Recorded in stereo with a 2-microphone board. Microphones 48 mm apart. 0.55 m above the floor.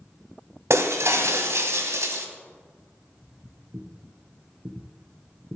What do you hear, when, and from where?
0.7 s breaking glass: 70° right (ahead or behind), 1.2 m
3.2 s footsteps: 40° right (ahead or behind), 2.5 m; by 5.6 s 65° right (ahead or behind), 1.4 m